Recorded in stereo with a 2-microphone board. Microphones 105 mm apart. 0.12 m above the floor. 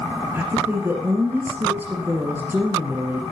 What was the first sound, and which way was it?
A woman speaking, 20° right (ahead or behind).